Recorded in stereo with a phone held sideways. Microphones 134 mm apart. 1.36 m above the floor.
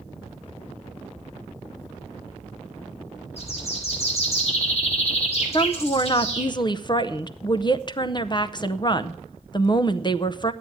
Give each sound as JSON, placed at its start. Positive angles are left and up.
{"t": 3.4, "sound": "a bird", "side_deg": 50, "distance_m": 3.0}
{"t": 5.5, "sound": "a woman speaking", "side_deg": 35, "distance_m": 0.7}